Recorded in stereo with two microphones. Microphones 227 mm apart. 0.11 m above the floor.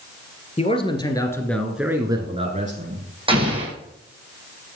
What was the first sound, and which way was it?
A man speaking, 25° left (ahead or behind).